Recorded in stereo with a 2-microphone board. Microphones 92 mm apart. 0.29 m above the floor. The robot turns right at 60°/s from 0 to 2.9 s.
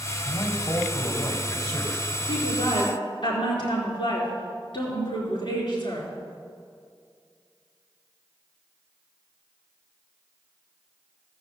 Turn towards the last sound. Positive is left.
turn(degrees=105)